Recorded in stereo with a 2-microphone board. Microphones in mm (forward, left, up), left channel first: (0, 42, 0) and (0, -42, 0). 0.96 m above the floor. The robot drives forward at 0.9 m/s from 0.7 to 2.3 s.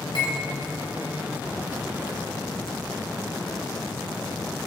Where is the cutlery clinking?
75° left (ahead or behind), 3 m.